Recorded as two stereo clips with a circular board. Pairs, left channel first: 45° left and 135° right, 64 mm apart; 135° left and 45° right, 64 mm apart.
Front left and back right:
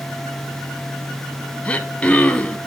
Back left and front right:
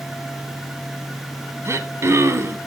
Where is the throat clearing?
20° right, 0.7 m.